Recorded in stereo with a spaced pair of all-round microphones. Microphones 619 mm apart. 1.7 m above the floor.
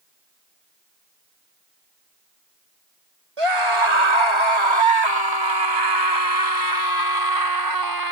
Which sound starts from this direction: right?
A scream, at 3.4 s.